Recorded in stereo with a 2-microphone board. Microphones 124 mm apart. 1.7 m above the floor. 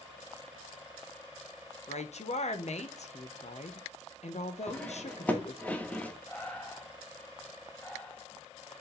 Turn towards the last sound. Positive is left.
turn(degrees=15)  # may be behind; listen again after turning